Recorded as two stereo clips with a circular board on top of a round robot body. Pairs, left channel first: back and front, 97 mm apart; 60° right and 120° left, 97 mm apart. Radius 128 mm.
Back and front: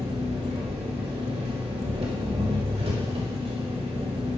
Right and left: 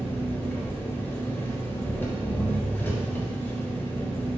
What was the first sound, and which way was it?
An engine running, 10° left.